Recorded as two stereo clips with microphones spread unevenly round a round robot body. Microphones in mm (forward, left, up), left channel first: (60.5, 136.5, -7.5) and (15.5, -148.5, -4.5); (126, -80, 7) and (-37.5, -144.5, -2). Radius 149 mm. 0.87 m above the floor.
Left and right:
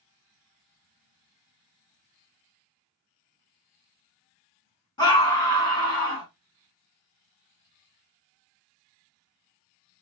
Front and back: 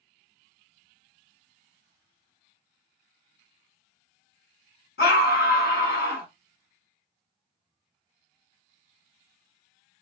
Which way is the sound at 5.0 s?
5° left.